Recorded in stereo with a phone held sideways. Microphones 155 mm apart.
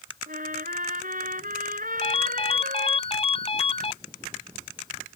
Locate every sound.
0.3 s a trumpet: 65° right (ahead or behind)
2.0 s a ringtone: 40° left (ahead or behind)